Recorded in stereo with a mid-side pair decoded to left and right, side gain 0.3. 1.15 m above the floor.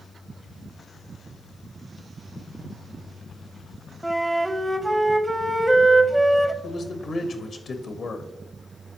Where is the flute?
20° right, 0.7 m.